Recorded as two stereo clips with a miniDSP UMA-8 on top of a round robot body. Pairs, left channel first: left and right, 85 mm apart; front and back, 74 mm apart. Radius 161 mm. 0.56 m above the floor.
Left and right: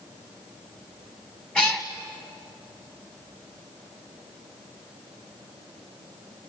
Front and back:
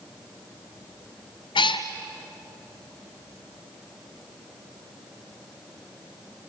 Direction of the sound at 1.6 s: 10° left.